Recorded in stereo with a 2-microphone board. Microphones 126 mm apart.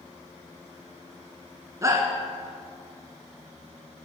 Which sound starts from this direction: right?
A shout, at 1.8 s.